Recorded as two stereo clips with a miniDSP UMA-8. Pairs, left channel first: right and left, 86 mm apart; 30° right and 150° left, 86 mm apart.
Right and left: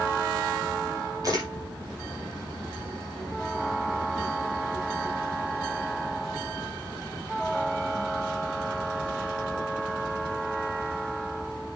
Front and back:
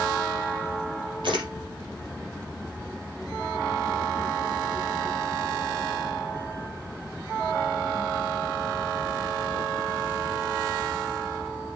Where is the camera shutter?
135° left, 5.5 m.